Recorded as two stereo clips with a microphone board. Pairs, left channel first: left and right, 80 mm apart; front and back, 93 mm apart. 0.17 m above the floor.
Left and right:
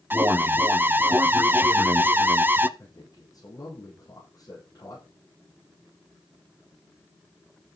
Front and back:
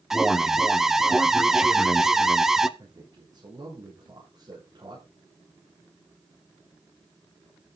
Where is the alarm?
100° right, 0.7 m.